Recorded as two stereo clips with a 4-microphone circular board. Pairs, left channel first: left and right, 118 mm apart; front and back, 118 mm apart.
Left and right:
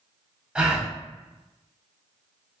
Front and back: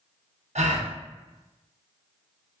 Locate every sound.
0.6 s a gasp: 170° right, 0.5 m